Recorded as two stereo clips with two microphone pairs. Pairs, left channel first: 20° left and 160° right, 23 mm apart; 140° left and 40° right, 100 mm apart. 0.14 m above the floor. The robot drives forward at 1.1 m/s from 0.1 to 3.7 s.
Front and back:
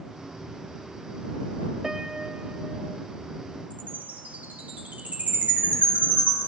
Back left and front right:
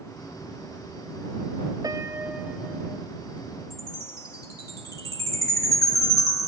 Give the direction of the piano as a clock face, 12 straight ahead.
3 o'clock.